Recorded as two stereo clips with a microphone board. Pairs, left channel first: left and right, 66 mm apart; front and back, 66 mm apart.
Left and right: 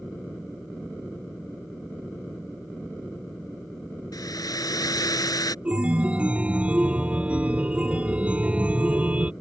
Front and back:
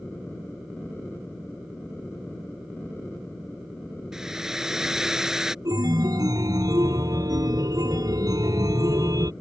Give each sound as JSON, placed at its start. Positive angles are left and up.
{"t": 4.1, "sound": "a hair dryer", "azimuth_deg": 100}
{"t": 5.7, "sound": "a chime", "azimuth_deg": -160}